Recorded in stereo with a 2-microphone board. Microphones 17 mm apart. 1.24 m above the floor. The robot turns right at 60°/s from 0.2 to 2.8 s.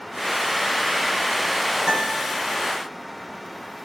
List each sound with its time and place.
1.9 s a guitar: 45° right (ahead or behind), 6 m; by 2.3 s 20° right (ahead or behind), 6 m